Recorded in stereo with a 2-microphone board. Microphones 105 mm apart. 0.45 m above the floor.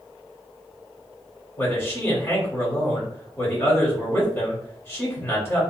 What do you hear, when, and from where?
1.6 s a man speaking: 25° left (ahead or behind), 1.3 m